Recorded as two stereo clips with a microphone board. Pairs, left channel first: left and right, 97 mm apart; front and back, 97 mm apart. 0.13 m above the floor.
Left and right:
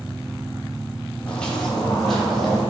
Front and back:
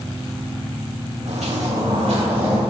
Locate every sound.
1.3 s footsteps: 170° left, 1.4 m; by 2.6 s straight behind, 3.5 m